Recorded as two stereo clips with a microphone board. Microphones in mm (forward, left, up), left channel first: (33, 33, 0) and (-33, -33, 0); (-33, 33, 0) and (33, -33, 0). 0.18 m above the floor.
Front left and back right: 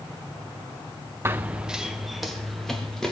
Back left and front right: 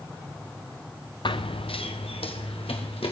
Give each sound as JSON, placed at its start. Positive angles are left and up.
{"t": 1.2, "sound": "running footsteps", "azimuth_deg": 160, "distance_m": 0.7}